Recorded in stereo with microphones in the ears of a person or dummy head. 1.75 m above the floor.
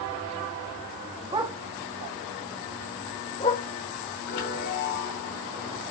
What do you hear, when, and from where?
1.3 s a dog barking: 25° right (ahead or behind), 1.3 m; by 3.6 s 40° left (ahead or behind), 3 m
4.3 s a chime: 70° left (ahead or behind), 4.5 m